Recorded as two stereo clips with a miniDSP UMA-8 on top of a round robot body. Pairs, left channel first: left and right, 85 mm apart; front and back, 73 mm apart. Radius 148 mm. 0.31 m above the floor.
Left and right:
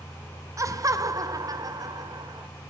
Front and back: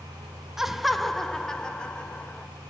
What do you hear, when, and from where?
0.6 s laughter: 100° right, 1.7 m; by 2.5 s 70° right, 2 m